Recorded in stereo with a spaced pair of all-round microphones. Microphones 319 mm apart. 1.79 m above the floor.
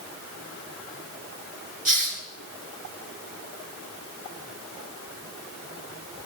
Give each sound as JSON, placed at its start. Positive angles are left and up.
{"t": 1.9, "sound": "a hiss", "side_deg": -90, "distance_m": 3.0}